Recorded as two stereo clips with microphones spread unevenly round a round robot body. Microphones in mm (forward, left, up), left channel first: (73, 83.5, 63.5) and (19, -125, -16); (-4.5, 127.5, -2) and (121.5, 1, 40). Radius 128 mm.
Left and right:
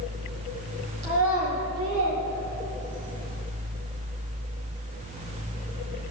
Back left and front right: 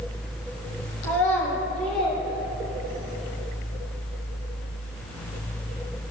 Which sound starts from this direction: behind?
A child speaking, at 1.0 s.